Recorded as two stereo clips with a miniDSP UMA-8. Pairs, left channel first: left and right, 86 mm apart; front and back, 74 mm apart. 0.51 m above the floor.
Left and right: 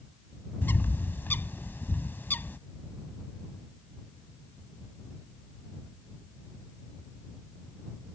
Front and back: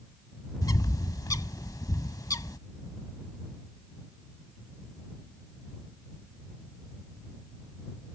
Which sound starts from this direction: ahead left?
A bird, at 0.6 s.